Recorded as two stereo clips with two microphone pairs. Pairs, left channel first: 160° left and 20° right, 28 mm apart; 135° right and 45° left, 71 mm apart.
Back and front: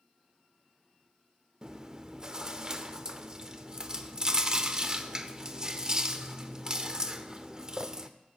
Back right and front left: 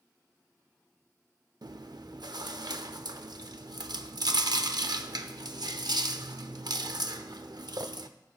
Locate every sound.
1.6 s chewing: 50° left, 0.6 m